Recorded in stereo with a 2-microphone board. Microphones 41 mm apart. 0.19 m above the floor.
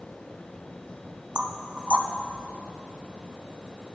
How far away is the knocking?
About 0.7 m.